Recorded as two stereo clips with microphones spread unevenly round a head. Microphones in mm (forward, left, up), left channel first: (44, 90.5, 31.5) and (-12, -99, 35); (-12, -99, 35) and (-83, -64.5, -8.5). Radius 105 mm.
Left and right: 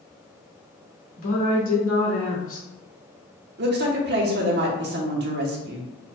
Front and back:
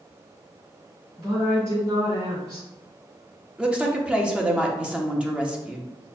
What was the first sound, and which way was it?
A woman speaking, 90° left.